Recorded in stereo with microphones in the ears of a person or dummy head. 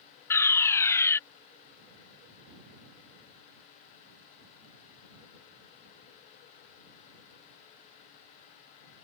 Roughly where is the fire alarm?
Centre.